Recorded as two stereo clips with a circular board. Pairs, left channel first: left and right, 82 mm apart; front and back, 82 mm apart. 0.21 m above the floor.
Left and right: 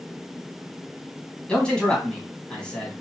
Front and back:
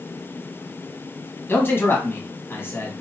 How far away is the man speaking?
About 1.3 m.